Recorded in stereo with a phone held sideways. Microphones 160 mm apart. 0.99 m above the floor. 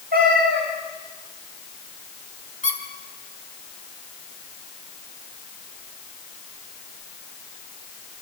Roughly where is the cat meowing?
Right.